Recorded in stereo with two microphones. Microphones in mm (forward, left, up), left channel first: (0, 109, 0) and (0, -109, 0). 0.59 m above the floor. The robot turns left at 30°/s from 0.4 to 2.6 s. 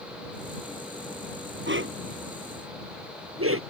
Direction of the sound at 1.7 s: 60° right (ahead or behind).